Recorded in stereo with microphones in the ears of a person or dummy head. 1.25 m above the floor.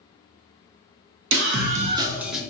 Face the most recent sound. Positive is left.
turn(degrees=0)  # may be behind; listen again after turning